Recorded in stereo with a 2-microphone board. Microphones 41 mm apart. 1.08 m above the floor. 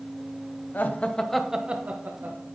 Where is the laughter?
50° left (ahead or behind), 1.1 m; by 2.5 s 60° right (ahead or behind), 1.5 m.